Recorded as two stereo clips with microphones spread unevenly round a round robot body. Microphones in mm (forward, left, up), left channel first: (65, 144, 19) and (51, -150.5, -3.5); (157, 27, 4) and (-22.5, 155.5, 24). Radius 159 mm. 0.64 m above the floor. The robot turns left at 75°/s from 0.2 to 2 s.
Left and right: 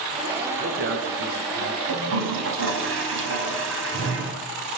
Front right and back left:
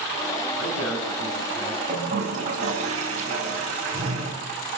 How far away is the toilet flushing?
About 4 m.